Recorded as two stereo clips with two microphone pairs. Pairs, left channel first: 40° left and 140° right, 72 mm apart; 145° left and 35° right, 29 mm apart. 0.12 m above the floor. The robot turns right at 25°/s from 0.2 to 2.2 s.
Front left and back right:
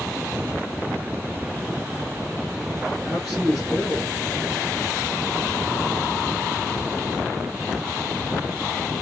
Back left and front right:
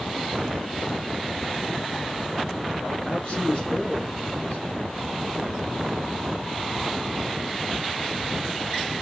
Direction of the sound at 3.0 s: 135° left.